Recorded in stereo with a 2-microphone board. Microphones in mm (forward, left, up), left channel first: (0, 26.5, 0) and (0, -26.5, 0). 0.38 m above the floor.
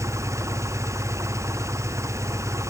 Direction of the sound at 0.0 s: 80° right.